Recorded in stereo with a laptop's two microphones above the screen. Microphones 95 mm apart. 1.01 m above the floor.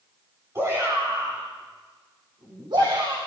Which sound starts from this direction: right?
A shout, at 0.6 s.